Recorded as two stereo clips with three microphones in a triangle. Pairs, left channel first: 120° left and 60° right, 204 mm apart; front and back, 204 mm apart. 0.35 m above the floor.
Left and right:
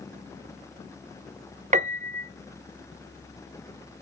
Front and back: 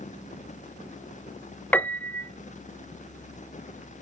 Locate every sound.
1.7 s a piano: 75° right, 0.5 m